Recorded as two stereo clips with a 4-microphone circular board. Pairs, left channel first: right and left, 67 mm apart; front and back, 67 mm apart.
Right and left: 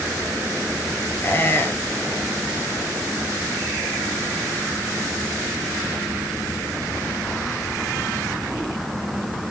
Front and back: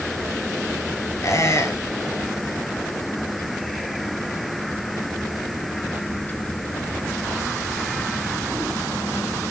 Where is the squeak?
35° right, 1.2 m.